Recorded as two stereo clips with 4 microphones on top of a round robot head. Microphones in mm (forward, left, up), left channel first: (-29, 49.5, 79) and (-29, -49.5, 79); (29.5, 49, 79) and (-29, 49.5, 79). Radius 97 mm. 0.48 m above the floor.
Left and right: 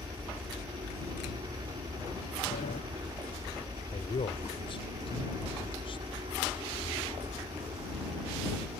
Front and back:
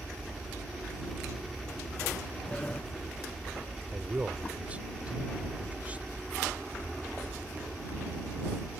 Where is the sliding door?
70° left.